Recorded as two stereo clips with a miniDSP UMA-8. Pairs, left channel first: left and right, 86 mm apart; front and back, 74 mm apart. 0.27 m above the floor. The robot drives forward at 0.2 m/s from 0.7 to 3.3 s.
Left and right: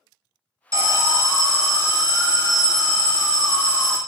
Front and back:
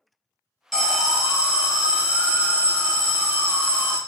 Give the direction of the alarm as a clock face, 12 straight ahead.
3 o'clock.